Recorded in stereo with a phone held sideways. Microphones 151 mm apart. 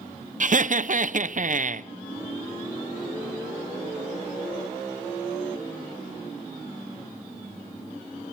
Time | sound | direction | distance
0.4 | laughter | 55° right (ahead or behind) | 0.8 m